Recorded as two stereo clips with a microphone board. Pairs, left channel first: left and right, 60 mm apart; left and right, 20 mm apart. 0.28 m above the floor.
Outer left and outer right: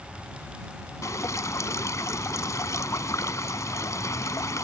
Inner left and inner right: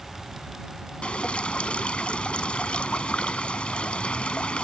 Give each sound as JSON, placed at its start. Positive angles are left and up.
{"t": 1.0, "sound": "dripping", "side_deg": 65}